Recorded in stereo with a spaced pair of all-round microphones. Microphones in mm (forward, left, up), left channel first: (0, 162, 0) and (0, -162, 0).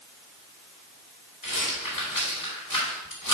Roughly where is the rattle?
Left.